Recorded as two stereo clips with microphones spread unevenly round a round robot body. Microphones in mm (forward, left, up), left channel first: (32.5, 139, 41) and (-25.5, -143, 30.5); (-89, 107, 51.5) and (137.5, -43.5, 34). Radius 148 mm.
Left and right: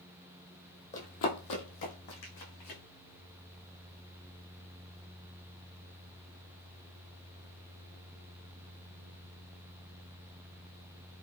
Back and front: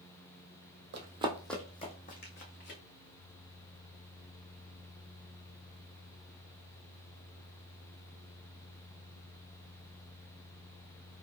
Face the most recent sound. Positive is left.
turn(degrees=100)